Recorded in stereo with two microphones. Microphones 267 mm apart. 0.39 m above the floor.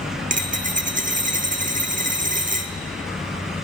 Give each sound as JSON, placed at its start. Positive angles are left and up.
{"t": 0.3, "sound": "a dropped coin", "side_deg": -30, "distance_m": 1.0}